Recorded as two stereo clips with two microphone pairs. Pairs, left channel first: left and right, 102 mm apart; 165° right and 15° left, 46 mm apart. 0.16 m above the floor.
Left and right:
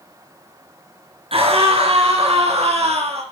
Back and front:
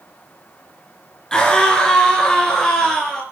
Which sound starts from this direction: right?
A scream, at 1.3 s.